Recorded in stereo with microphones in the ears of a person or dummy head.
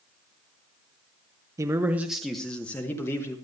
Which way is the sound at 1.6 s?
15° right (ahead or behind).